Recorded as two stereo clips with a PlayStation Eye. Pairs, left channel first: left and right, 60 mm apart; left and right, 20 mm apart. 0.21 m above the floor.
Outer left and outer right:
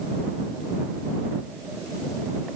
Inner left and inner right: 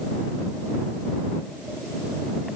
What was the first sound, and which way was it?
Only background noise.